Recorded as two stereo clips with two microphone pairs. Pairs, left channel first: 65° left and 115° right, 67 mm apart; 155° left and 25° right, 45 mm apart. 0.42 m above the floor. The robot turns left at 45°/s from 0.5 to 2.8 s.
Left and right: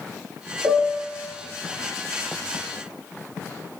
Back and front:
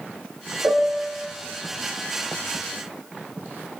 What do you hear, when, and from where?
0.6 s a piano: 65° right, 0.6 m; by 1.2 s 90° right, 0.6 m